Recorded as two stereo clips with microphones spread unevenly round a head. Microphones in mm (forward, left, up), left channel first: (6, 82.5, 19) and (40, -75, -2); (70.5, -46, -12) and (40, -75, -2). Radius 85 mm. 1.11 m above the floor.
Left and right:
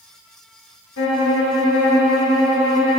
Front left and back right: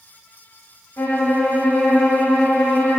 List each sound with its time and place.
1.0 s a violin: 100° left, 2.5 m